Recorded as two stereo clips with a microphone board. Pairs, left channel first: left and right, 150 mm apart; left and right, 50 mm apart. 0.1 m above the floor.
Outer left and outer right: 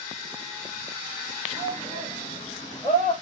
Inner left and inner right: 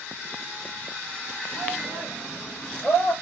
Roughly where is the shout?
Centre.